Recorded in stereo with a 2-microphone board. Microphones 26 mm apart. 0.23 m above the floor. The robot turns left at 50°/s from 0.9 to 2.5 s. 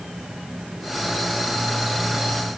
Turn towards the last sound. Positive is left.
No sound to turn to.